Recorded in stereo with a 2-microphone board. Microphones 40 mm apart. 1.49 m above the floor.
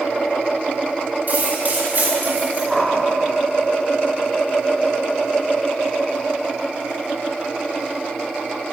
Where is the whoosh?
5° left (ahead or behind), 2 m.